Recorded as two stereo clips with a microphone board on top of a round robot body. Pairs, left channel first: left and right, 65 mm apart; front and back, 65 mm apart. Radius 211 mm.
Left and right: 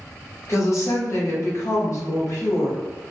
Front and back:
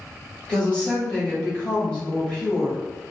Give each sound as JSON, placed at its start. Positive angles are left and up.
{"t": 0.5, "sound": "a woman speaking", "azimuth_deg": 70, "distance_m": 1.7}